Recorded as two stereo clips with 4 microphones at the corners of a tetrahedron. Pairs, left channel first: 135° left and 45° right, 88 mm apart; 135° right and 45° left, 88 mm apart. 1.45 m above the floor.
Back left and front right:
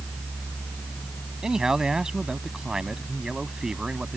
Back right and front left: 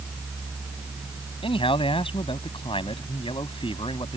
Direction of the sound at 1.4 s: 130° right.